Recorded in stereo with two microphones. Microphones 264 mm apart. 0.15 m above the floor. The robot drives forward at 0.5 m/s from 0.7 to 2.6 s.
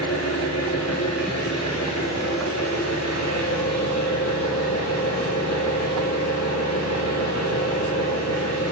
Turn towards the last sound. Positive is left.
turn(degrees=80)